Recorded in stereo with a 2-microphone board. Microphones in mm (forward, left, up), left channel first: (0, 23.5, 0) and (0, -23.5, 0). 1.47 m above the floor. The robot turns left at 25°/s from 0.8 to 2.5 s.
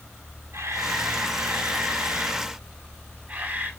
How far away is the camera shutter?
About 4.5 m.